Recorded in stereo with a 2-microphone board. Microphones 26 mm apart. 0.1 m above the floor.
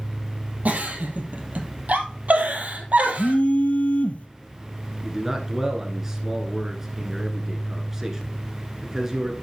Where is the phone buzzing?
60° left (ahead or behind), 1.1 m.